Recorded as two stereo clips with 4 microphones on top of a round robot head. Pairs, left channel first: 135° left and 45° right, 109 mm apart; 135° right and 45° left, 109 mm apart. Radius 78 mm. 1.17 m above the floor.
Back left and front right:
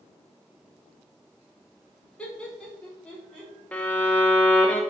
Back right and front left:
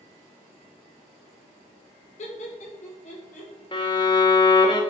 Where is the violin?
155° right, 0.6 m.